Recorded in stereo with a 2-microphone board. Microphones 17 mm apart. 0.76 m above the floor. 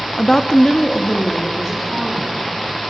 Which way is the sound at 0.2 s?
20° left (ahead or behind).